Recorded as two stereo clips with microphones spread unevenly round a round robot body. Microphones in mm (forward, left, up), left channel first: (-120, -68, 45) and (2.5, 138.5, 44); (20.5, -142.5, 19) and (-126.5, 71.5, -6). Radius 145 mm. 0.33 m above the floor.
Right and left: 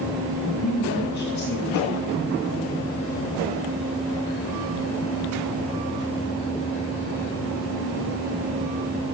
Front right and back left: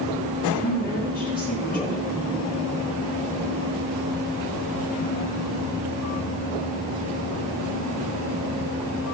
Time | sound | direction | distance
0.6 | a woman speaking | 110° right | 5.5 m